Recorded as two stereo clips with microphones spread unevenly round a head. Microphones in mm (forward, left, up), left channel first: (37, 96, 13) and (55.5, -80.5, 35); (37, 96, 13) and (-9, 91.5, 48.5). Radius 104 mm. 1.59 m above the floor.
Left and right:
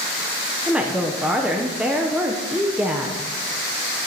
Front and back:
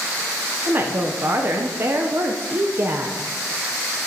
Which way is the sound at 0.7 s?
165° right.